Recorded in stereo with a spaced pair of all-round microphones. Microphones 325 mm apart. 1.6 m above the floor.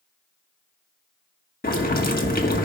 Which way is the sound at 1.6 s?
25° left (ahead or behind).